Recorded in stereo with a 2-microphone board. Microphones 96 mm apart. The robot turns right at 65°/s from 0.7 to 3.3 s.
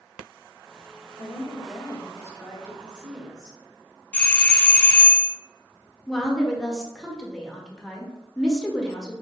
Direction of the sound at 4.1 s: 15° left (ahead or behind).